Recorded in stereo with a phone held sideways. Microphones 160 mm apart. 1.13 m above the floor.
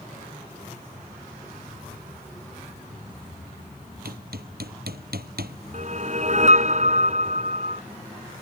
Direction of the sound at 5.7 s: 50° right (ahead or behind).